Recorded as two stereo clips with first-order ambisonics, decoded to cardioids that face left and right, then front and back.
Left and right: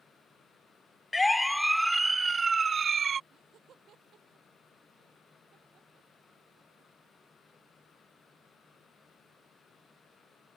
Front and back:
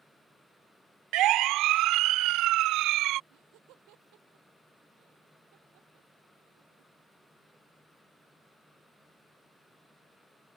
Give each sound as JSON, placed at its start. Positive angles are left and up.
{"t": 1.1, "sound": "a siren", "azimuth_deg": 165}
{"t": 3.3, "sound": "laughter", "azimuth_deg": -150}